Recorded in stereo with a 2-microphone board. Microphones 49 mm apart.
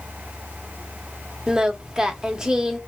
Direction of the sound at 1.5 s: 15° right (ahead or behind).